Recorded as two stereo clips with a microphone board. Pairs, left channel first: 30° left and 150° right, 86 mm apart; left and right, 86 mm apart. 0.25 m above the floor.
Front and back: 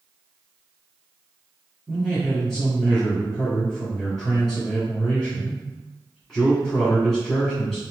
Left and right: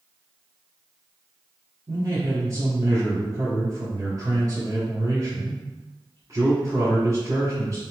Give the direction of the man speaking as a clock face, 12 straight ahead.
2 o'clock.